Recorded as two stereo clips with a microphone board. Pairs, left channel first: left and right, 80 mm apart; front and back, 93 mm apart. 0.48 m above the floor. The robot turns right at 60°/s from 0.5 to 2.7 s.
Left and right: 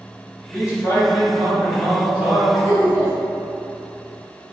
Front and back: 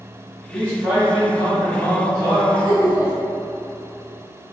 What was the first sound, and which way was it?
A man speaking, 70° left.